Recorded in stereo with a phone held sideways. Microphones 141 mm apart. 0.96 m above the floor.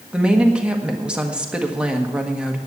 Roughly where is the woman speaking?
Centre.